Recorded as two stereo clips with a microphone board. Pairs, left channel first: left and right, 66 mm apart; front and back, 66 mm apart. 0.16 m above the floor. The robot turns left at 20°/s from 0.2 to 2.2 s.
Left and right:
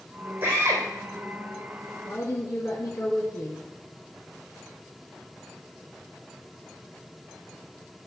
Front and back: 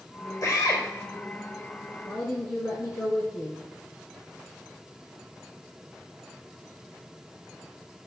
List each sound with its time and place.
0.4 s a drill: 30° right, 4 m; by 0.8 s 40° right, 4 m
2.0 s a woman speaking: 55° left, 2 m